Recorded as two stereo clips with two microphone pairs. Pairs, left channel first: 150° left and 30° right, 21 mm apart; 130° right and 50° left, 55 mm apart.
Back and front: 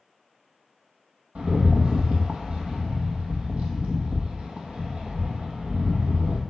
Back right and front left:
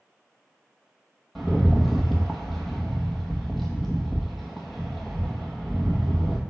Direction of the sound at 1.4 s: 40° right.